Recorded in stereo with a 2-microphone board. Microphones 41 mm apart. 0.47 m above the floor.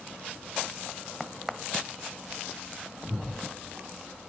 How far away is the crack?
About 1.1 m.